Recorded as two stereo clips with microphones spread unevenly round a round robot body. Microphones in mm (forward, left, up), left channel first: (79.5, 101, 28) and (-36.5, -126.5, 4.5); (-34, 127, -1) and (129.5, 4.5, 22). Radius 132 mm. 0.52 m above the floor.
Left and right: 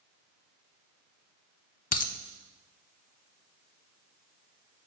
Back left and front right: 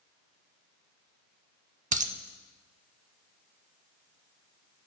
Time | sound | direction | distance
1.9 | a dropped coin | 10° left | 0.6 m